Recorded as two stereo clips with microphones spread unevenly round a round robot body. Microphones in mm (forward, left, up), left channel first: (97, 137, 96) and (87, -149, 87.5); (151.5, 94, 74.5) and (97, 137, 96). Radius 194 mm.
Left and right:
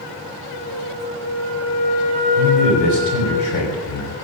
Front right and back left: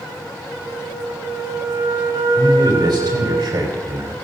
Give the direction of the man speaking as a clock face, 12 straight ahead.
9 o'clock.